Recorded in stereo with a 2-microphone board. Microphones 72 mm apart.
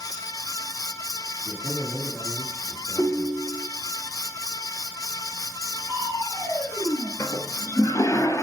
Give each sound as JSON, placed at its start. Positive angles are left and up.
{"t": 1.4, "sound": "a man speaking", "side_deg": 20, "distance_m": 4.0}
{"t": 3.0, "sound": "a ringtone", "side_deg": 30, "distance_m": 5.0}
{"t": 5.9, "sound": "crushing", "side_deg": 60, "distance_m": 2.5}
{"t": 7.2, "sound": "a toilet flushing", "side_deg": 40, "distance_m": 0.8}